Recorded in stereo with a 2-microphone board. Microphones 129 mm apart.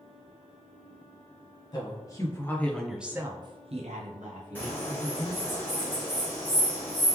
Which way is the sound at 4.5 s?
15° left (ahead or behind).